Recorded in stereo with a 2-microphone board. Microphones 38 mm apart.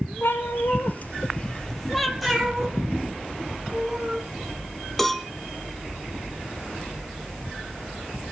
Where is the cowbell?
5° left (ahead or behind), 1.2 m.